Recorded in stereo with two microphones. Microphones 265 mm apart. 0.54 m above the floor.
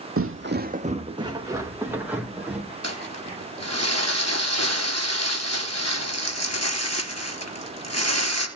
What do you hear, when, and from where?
0.2 s footsteps: 55° right (ahead or behind), 0.9 m; by 2.7 s 5° right (ahead or behind), 4 m
2.8 s crumpling: 75° left (ahead or behind), 3 m